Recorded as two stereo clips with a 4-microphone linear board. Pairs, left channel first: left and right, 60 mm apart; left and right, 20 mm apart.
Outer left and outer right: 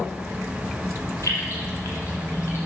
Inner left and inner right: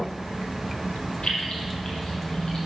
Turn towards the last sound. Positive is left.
turn(degrees=40)  # may be behind; listen again after turning